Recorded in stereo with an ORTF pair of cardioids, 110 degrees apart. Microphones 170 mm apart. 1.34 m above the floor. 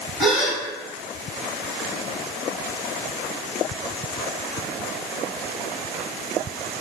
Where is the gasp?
Straight ahead, 0.6 m.